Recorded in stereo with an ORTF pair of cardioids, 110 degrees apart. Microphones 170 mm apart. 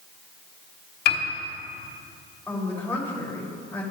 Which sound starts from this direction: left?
A piano, at 1.1 s.